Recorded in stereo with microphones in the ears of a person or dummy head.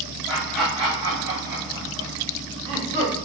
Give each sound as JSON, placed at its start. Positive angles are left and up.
{"t": 0.3, "sound": "laughter", "side_deg": -5, "distance_m": 0.9}